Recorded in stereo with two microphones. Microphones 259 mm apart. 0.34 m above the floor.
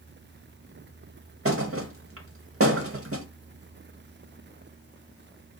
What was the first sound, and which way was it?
A thud, 60° right (ahead or behind).